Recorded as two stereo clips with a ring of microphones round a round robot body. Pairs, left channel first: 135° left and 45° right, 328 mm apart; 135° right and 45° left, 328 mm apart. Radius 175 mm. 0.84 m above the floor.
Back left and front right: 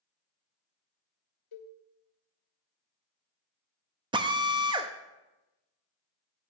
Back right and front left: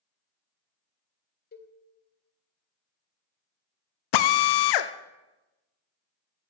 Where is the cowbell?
160° left, 1.4 m.